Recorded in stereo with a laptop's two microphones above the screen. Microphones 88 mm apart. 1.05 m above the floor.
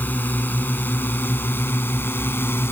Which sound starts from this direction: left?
A drone, at 0.0 s.